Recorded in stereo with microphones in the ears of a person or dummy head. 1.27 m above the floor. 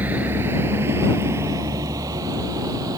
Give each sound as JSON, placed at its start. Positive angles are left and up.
{"t": 0.0, "sound": "a vehicle", "side_deg": -10}